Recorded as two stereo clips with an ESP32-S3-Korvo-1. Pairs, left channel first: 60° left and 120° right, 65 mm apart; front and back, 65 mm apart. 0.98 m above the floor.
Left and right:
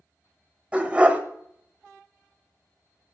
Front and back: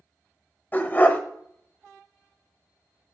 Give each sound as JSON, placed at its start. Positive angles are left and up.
{"t": 0.7, "sound": "a dog barking", "azimuth_deg": -55, "distance_m": 1.0}